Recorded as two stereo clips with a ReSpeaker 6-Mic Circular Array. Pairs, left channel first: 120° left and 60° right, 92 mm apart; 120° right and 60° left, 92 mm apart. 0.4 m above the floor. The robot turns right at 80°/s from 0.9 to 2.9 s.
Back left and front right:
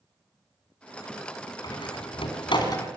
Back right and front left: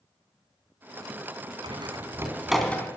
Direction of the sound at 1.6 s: 75° left.